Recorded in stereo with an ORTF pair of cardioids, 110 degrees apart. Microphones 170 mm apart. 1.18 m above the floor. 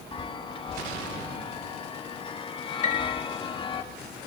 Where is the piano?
45° left, 2 m.